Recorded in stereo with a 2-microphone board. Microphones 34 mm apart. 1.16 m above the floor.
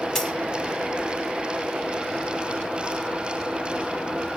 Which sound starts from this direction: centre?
A dropped coin, at 0.1 s.